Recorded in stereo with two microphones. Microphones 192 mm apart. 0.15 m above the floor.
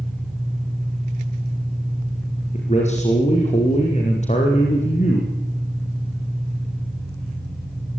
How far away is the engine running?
About 8.5 m.